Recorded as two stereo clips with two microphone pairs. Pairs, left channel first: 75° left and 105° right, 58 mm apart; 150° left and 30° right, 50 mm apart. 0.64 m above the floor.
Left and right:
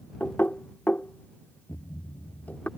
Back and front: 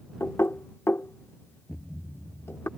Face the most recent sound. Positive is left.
turn(degrees=65)